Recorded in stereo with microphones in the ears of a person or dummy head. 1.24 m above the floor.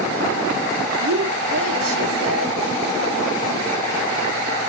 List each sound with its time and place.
1.0 s a woman speaking: 80° right, 2.5 m